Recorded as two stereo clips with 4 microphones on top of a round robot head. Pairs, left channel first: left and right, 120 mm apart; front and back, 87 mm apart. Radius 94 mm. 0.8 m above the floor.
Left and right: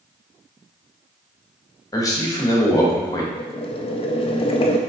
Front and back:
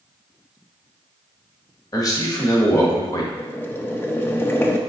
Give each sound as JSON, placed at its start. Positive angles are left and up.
{"t": 1.9, "sound": "a man speaking", "azimuth_deg": 35, "distance_m": 1.2}
{"t": 3.4, "sound": "boiling", "azimuth_deg": 65, "distance_m": 0.5}